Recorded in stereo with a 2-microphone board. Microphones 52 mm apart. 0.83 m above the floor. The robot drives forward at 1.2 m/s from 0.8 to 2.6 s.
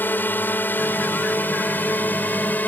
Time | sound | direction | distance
0.0 | a drone | 40° left (ahead or behind) | ?